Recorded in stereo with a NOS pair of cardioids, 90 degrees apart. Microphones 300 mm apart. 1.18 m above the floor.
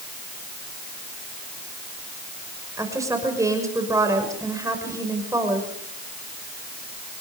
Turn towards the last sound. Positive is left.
turn(degrees=-10)